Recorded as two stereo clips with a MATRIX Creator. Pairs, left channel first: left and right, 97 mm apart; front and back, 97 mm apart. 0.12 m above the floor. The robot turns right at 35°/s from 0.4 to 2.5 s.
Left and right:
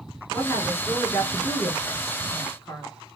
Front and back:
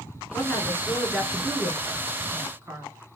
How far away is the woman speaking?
About 1.4 m.